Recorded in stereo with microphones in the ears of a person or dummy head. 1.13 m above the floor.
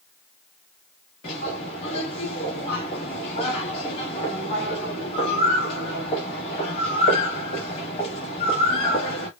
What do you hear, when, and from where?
1.2 s a bird: 20° left (ahead or behind), 1.0 m